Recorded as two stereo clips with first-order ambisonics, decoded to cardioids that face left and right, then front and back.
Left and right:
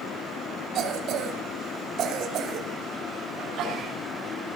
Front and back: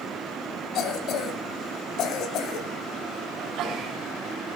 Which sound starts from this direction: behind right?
A sneeze, at 3.4 s.